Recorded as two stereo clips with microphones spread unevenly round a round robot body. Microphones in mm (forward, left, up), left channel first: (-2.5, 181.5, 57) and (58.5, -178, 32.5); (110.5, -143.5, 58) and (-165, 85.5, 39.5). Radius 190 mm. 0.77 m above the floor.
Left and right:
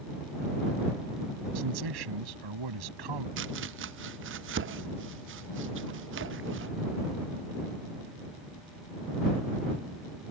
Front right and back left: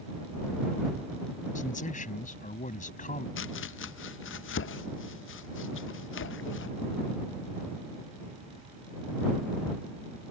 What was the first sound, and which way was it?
A man speaking, 110° right.